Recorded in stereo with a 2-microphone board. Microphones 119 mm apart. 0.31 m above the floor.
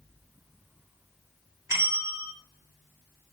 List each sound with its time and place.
1.7 s a bell: 25° right (ahead or behind), 0.9 m